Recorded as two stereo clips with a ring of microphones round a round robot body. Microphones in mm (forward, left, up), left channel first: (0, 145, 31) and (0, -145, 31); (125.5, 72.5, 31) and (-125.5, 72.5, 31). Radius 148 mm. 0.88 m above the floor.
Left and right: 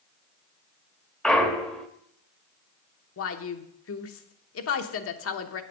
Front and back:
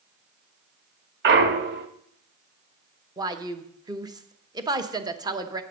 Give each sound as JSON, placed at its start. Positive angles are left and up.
{"t": 1.2, "sound": "a clunk", "azimuth_deg": 175, "distance_m": 0.7}
{"t": 3.2, "sound": "a woman speaking", "azimuth_deg": 110, "distance_m": 1.0}